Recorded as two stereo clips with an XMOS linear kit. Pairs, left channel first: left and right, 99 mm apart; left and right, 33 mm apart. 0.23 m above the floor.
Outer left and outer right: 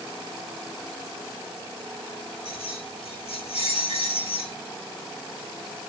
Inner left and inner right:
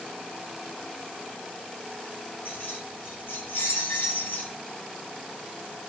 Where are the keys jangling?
85° left, 9.5 m.